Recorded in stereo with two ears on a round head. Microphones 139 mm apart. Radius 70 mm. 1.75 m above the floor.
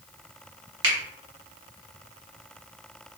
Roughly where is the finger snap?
Right.